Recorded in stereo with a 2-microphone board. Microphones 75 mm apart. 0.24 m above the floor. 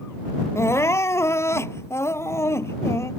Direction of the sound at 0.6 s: 35° left (ahead or behind).